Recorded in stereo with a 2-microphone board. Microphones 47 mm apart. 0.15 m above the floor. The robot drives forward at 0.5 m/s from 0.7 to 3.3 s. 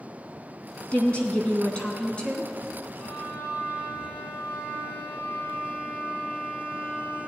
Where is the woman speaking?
25° left (ahead or behind), 1.2 m; by 2.5 s 20° left (ahead or behind), 1.3 m.